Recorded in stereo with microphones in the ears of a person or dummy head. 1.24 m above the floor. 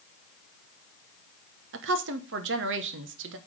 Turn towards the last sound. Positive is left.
turn(degrees=-60)  # may be behind; listen again after turning